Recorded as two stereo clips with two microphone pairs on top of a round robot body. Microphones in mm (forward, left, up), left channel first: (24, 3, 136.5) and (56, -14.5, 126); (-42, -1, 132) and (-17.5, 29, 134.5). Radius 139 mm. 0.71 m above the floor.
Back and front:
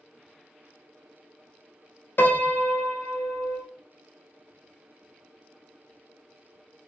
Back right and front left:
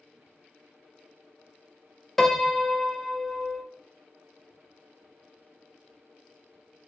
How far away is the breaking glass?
No breaking glass in this recording.